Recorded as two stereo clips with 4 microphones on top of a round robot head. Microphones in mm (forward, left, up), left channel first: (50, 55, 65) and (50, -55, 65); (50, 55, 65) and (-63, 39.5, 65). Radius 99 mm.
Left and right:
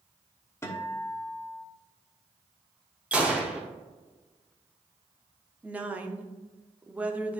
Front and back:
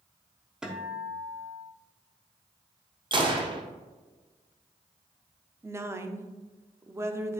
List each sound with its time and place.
0.6 s a guitar: 110° left, 1.4 m
3.1 s a gunshot: 160° right, 1.3 m
5.6 s a woman speaking: 145° right, 0.9 m